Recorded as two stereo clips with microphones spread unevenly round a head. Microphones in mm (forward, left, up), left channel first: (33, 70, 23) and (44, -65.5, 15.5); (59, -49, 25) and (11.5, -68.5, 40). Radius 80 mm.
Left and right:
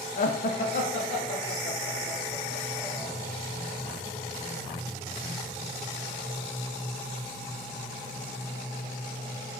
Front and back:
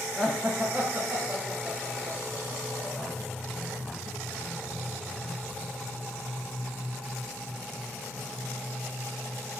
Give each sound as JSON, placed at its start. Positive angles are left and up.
{"t": 0.2, "sound": "laughter", "azimuth_deg": 90, "distance_m": 0.5}